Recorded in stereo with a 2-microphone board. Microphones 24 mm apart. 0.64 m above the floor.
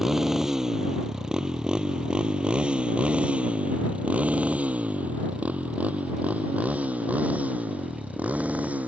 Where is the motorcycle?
15° right (ahead or behind); by 8.9 s 85° right.